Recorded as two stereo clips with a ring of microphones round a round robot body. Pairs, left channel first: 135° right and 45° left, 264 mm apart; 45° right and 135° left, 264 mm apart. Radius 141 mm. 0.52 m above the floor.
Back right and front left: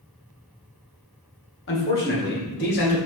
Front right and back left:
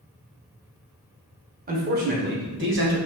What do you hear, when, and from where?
1.7 s a man speaking: 170° right, 2 m; by 3.0 s 175° left, 2.5 m